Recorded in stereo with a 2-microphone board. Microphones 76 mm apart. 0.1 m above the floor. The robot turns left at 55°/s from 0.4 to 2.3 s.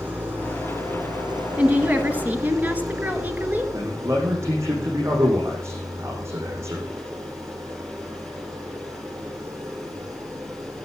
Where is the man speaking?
40° right (ahead or behind), 8 m.